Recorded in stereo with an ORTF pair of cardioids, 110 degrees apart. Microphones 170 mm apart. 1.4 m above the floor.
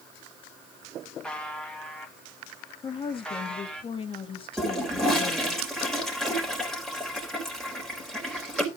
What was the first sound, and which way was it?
A buzzer, 5° left.